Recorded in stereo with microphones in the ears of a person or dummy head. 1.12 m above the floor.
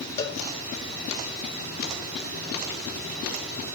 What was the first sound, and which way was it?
A cowbell, 15° left (ahead or behind).